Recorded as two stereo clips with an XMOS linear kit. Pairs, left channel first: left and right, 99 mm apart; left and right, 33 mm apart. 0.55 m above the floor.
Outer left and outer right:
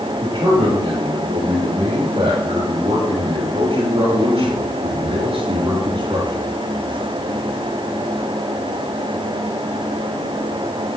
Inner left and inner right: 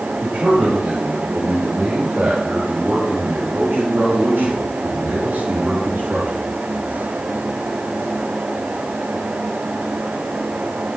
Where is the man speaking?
70° right (ahead or behind), 9 m; by 6.5 s 55° right (ahead or behind), 7.5 m.